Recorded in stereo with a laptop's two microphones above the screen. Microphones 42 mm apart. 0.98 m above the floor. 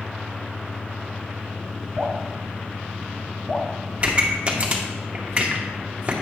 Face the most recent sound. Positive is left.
turn(degrees=-30)  # may be behind; listen again after turning